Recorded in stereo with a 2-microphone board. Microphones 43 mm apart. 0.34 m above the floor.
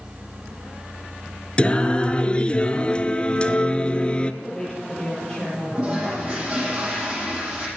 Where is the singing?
25° left (ahead or behind), 1.0 m.